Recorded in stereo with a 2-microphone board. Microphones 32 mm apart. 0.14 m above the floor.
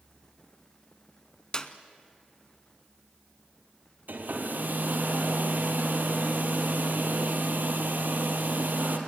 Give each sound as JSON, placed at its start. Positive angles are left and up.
{"t": 1.5, "sound": "a clap", "side_deg": 25, "distance_m": 1.0}
{"t": 4.1, "sound": "a hair dryer", "side_deg": -65, "distance_m": 2.5}